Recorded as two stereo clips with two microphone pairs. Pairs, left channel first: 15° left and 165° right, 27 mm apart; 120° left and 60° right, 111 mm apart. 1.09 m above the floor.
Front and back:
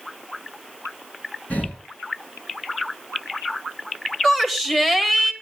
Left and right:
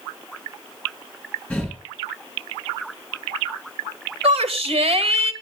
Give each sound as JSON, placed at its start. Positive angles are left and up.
{"t": 1.5, "sound": "breathing", "azimuth_deg": 40, "distance_m": 9.0}
{"t": 4.2, "sound": "a shout", "azimuth_deg": -50, "distance_m": 1.9}